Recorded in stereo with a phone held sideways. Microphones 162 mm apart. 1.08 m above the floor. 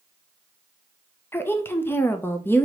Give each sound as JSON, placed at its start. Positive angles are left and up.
{"t": 1.3, "sound": "a woman speaking", "side_deg": 15, "distance_m": 0.6}